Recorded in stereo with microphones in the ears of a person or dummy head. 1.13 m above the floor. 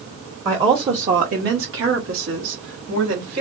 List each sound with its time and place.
0.5 s a woman speaking: 15° right (ahead or behind), 0.8 m; by 3.4 s 60° right (ahead or behind), 1.6 m